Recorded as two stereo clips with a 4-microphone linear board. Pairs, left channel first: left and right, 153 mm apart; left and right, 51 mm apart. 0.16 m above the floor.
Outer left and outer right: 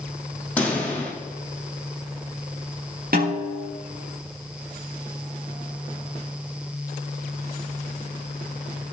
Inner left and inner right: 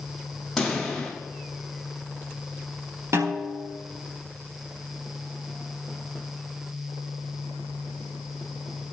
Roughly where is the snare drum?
Right.